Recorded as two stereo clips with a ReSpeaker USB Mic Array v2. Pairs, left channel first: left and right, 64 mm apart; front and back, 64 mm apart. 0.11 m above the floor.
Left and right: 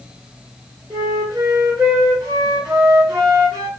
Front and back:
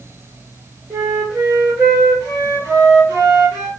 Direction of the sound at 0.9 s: 120° right.